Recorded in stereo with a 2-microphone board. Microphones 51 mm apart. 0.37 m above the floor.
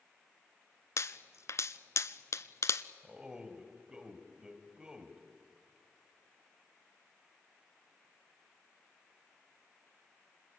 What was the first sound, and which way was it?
A pop, 65° left (ahead or behind).